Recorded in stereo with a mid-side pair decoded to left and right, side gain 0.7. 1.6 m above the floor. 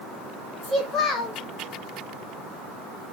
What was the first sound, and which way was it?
A child speaking, 35° left.